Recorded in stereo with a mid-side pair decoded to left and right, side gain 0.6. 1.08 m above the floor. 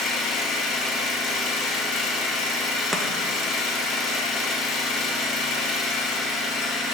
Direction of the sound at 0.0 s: 60° left.